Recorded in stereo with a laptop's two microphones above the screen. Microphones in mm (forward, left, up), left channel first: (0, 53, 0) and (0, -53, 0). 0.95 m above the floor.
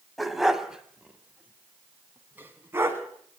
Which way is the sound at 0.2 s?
Centre (ahead or behind).